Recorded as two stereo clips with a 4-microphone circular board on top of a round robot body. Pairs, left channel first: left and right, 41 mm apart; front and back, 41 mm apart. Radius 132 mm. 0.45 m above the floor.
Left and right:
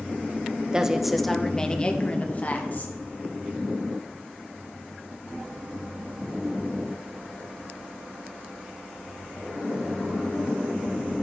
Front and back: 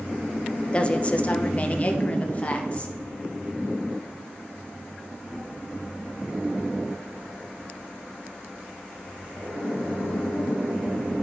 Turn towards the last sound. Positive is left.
turn(degrees=55)